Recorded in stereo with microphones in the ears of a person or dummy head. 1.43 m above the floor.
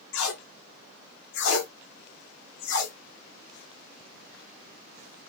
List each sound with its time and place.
0.1 s tape being pulled: 75° left (ahead or behind), 0.9 m